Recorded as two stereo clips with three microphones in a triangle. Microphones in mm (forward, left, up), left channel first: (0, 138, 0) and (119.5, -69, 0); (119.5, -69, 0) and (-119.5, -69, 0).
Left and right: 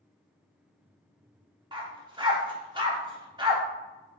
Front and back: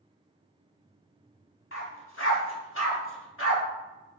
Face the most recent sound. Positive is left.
turn(degrees=10)